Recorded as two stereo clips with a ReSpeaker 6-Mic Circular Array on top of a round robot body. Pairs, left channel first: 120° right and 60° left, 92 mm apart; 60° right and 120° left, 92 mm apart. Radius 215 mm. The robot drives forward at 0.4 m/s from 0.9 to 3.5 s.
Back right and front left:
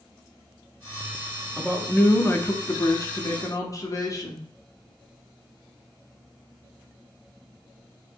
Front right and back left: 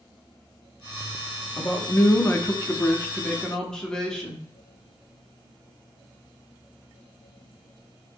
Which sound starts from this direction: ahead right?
A man speaking, at 1.6 s.